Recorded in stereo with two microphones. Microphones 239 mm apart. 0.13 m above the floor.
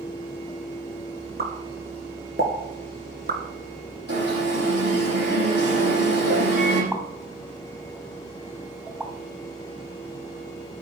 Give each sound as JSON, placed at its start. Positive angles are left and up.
{"t": 1.4, "sound": "a pop", "side_deg": -40, "distance_m": 2.0}
{"t": 4.1, "sound": "an alarm", "side_deg": -45, "distance_m": 7.5}
{"t": 6.9, "sound": "a pop", "side_deg": -10, "distance_m": 3.5}